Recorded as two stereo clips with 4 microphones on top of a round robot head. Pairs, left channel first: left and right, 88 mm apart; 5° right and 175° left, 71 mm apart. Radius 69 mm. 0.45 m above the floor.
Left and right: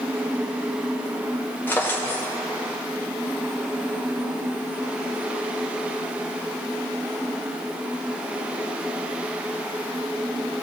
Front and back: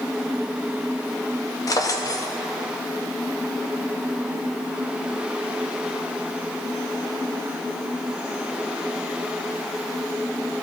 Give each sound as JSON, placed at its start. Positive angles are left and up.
{"t": 1.7, "sound": "a drawer", "azimuth_deg": 20, "distance_m": 0.8}